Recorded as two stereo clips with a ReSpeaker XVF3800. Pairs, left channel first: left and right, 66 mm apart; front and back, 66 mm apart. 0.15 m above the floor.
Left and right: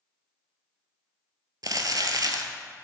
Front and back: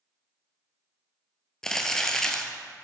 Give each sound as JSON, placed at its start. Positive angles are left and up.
{"t": 1.6, "sound": "crumpling", "azimuth_deg": -80, "distance_m": 0.7}